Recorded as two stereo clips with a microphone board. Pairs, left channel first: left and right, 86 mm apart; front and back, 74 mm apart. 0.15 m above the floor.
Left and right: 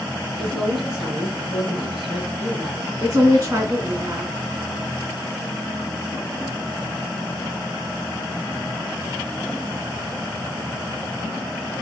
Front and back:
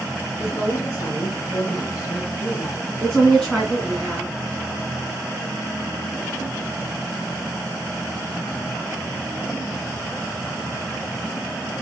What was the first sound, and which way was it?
A woman speaking, 5° right.